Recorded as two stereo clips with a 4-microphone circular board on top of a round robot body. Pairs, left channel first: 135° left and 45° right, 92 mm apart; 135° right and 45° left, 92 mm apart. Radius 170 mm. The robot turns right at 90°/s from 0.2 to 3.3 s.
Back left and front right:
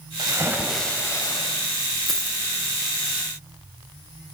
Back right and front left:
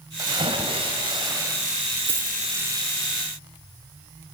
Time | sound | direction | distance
0.2 | a splash | 5° right | 3.5 m
2.1 | a dropped coin | 45° left | 1.7 m